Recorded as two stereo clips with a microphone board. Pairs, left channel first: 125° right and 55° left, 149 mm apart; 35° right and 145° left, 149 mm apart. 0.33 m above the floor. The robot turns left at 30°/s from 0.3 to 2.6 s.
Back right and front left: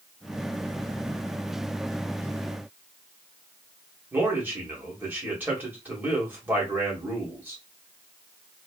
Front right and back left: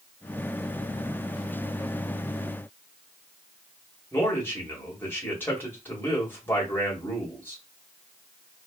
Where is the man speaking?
5° left, 1.4 m.